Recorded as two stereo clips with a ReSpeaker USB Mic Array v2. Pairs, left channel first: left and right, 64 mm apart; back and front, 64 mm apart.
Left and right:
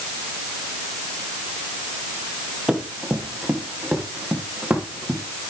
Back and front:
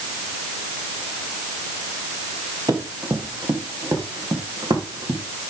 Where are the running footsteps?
5° right, 4 m; by 5.2 s 20° right, 6 m.